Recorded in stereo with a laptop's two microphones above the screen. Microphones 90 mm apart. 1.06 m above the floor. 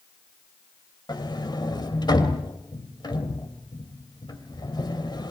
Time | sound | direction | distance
1.1 | a sliding door | 50° left (ahead or behind) | 2.5 m